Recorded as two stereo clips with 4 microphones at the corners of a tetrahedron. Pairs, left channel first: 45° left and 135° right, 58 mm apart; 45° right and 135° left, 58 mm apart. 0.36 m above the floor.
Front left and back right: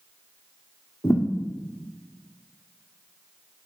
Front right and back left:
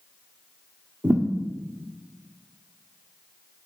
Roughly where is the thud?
Left.